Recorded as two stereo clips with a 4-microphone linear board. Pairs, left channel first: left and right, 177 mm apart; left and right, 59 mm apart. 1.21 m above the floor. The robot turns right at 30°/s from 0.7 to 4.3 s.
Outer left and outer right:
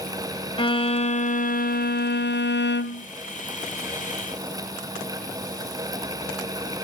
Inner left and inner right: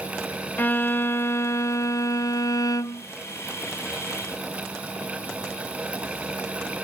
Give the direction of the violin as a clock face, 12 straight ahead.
11 o'clock.